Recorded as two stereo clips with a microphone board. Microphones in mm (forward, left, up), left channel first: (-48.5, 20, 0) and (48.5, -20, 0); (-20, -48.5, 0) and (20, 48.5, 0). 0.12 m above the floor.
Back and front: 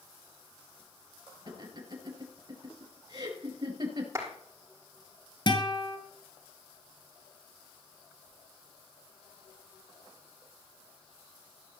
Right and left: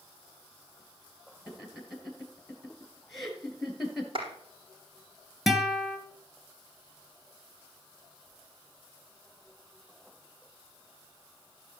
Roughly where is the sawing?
No sawing in this recording.